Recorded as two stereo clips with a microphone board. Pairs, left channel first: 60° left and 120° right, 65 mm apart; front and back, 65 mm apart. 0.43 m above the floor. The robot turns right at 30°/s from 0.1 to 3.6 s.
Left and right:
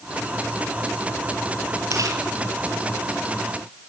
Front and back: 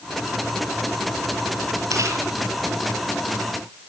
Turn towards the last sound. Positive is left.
turn(degrees=-100)